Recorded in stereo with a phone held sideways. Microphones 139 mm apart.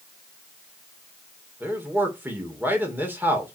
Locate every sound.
1.6 s a man speaking: 15° right (ahead or behind), 2.5 m